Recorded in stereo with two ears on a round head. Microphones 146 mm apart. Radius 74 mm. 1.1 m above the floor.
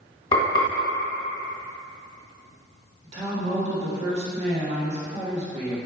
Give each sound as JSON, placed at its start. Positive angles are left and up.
{"t": 0.3, "sound": "frying", "side_deg": 25, "distance_m": 1.6}
{"t": 3.0, "sound": "a woman speaking", "side_deg": -40, "distance_m": 1.6}